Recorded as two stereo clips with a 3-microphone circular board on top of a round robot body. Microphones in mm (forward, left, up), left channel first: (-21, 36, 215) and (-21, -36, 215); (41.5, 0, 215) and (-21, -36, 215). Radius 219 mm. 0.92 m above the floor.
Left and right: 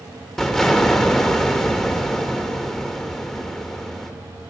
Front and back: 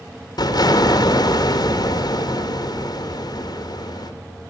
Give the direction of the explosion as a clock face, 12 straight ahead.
12 o'clock.